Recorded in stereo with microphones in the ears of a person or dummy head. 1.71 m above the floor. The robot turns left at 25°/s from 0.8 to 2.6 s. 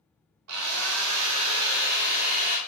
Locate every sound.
0.5 s a drill: 95° right, 0.6 m; by 2.6 s 140° right, 0.6 m